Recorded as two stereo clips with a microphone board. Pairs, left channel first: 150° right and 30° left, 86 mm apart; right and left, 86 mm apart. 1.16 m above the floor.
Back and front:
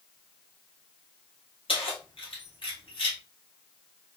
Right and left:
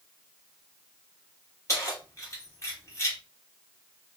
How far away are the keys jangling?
About 1.3 m.